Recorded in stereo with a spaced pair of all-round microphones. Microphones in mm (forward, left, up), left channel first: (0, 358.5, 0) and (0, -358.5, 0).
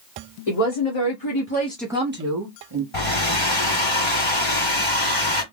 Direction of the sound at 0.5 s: 55° left (ahead or behind).